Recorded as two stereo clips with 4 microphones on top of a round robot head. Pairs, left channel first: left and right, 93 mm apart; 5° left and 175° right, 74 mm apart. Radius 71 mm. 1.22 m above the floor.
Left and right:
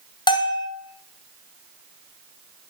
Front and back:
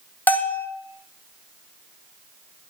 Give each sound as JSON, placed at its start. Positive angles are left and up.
{"t": 0.3, "sound": "a bell", "azimuth_deg": 70, "distance_m": 0.8}